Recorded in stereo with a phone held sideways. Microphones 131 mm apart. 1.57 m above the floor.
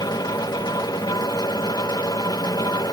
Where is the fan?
35° left (ahead or behind).